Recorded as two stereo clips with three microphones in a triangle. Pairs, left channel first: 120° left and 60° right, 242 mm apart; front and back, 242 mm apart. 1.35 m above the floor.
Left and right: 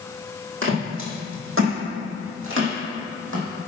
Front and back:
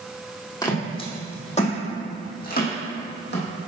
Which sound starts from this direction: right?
Footsteps, at 0.6 s.